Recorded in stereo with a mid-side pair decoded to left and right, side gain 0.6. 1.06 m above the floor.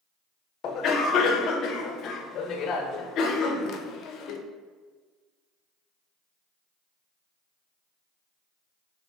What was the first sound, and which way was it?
A cough, 55° left.